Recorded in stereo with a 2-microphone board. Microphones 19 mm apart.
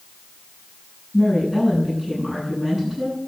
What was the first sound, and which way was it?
A woman speaking, 25° right (ahead or behind).